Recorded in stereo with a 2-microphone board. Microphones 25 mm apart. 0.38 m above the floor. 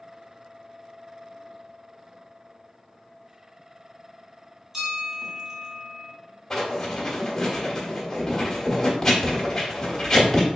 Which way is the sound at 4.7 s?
20° right (ahead or behind).